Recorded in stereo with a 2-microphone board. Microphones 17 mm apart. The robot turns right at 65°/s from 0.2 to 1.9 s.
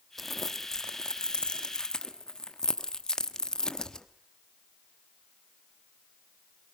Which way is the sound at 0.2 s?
5° left (ahead or behind).